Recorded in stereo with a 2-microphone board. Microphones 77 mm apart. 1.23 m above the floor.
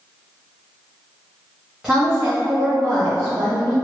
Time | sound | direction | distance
1.8 | a woman speaking | 5° right (ahead or behind) | 0.9 m